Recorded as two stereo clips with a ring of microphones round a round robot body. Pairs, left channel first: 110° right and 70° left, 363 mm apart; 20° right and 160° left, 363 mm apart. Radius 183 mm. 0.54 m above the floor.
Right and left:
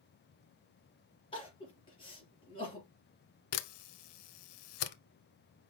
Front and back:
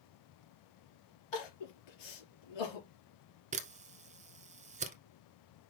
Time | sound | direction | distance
1.3 | crying | 35° right | 4 m
3.5 | a camera shutter | 130° right | 1.0 m